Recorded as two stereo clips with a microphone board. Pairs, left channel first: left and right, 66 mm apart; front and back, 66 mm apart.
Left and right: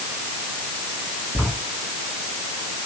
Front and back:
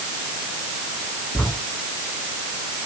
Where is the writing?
30° left, 4 m.